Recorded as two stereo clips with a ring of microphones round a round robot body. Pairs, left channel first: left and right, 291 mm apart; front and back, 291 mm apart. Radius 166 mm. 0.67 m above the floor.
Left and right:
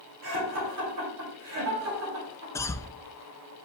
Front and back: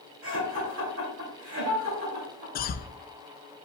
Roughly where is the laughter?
Behind right.